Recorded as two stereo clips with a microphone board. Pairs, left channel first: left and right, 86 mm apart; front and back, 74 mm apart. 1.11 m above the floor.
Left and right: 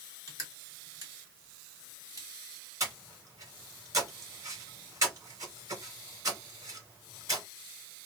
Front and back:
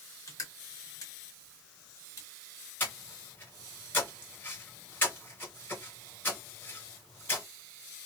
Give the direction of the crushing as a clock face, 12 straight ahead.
1 o'clock.